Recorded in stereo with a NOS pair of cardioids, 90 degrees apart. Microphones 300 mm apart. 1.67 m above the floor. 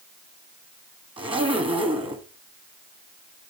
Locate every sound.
1.2 s a zipper: 15° right, 1.3 m